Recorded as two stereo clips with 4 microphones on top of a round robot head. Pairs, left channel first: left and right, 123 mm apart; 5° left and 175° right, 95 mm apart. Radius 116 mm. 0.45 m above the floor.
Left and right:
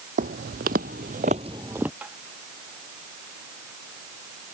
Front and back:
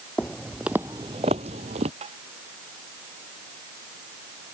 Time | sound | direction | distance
0.2 | footsteps | 80° right | ?
2.0 | tapping | 170° right | ?